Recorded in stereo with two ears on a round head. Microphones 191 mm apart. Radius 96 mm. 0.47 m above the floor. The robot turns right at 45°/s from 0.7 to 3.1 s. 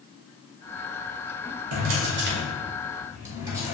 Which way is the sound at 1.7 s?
75° right (ahead or behind).